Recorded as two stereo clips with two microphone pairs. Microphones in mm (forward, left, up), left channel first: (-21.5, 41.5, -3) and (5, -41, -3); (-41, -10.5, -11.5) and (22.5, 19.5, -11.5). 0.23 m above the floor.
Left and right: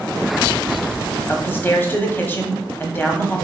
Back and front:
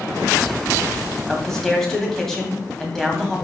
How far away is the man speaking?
About 1.4 m.